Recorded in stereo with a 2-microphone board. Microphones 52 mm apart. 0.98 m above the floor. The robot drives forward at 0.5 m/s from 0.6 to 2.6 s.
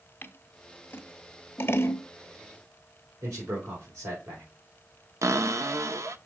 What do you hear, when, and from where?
0.2 s scissors: 40° left (ahead or behind), 1.1 m; by 2.0 s 50° left (ahead or behind), 1.0 m
3.2 s a man speaking: 80° right, 4 m
5.2 s a cupboard door: 75° right (ahead or behind), 0.6 m